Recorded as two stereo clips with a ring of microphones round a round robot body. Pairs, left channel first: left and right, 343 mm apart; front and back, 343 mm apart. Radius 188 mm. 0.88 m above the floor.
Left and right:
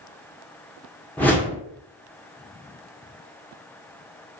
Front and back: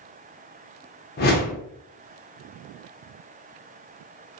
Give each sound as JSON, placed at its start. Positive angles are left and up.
{"t": 1.2, "sound": "a whoosh", "azimuth_deg": 10, "distance_m": 0.6}